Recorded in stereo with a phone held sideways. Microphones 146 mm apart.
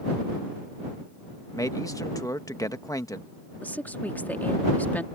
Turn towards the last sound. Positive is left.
turn(degrees=10)  # may be behind; listen again after turning